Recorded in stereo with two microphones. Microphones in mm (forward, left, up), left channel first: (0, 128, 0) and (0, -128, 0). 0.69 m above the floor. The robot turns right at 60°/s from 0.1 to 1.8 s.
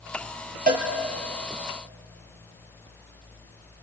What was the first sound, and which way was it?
A cowbell, 35° right (ahead or behind).